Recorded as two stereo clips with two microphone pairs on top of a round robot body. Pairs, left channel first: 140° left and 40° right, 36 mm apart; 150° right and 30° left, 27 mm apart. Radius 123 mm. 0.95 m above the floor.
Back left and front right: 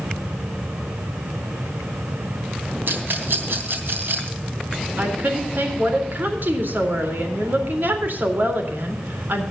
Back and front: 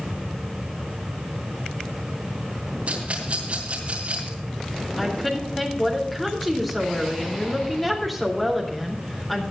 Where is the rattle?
15° right, 3 m.